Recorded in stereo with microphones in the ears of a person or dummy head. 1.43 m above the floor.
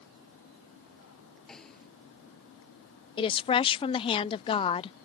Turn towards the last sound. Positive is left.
turn(degrees=25)  # may be behind; listen again after turning